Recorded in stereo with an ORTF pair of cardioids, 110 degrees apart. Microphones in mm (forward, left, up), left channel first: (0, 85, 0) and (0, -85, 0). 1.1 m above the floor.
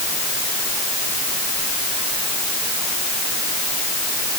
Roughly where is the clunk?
I don't hear a clunk.